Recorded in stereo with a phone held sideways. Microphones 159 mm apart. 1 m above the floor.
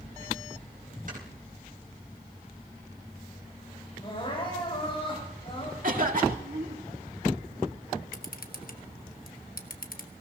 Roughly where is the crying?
Left.